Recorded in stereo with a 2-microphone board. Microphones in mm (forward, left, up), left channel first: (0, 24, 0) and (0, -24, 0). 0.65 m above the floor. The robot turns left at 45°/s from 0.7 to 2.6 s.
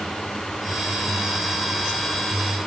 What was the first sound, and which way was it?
Only background noise.